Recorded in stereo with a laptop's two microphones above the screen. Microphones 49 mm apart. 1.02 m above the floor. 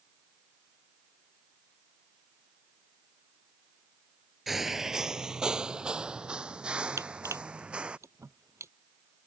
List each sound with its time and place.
4.5 s footsteps: 5° right (ahead or behind); by 8.0 s 20° right (ahead or behind)
7.0 s crushing: 70° right (ahead or behind)